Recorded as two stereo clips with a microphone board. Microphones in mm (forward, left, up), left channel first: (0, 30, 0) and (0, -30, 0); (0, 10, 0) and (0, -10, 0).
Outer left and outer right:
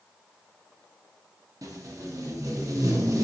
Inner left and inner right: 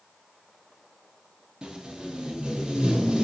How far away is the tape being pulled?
About 0.5 m.